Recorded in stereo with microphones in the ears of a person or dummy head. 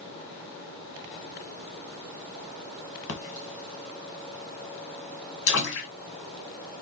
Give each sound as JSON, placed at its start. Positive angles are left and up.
{"t": 3.1, "sound": "a splash", "side_deg": 65, "distance_m": 1.2}